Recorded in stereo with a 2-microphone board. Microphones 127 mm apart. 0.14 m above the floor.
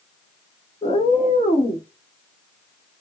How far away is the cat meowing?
About 1.0 m.